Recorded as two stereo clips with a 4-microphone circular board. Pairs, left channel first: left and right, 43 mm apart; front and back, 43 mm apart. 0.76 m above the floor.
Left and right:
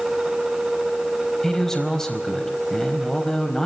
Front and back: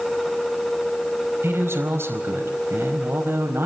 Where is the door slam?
No door slam in this recording.